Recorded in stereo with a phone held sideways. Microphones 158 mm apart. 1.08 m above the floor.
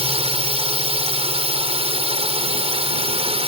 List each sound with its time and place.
0.0 s a drone: 40° right (ahead or behind)